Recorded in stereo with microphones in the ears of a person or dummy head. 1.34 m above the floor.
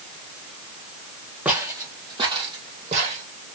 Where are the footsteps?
15° right (ahead or behind), 2 m; by 3.2 s 45° right (ahead or behind), 3.5 m.